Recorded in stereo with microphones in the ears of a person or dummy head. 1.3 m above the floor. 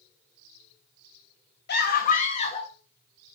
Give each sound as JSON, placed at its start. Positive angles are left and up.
{"t": 1.7, "sound": "a scream", "side_deg": 60, "distance_m": 2.5}